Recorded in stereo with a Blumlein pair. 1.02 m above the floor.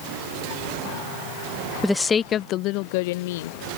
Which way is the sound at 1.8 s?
Straight ahead.